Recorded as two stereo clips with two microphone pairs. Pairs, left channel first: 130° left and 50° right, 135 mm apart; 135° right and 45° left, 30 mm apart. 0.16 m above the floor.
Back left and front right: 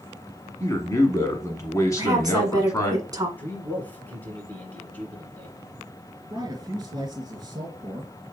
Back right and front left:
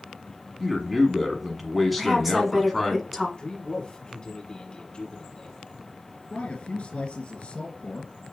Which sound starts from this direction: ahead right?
A woman speaking, at 2.0 s.